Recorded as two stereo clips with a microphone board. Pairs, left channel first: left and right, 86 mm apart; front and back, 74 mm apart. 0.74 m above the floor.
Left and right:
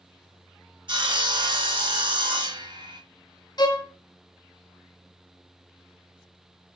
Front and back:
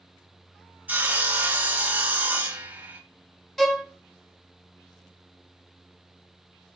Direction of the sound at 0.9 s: 115° right.